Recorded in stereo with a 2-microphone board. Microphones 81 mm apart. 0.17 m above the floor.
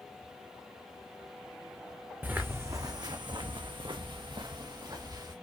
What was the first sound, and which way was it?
Footsteps, 20° right (ahead or behind).